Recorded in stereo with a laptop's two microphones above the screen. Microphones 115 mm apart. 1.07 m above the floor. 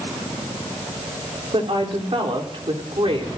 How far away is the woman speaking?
About 3.5 m.